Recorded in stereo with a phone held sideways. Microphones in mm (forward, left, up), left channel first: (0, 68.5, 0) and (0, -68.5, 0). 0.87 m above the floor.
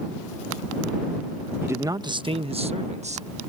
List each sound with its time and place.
1.6 s a man speaking: 15° right (ahead or behind); by 3.5 s 60° right (ahead or behind)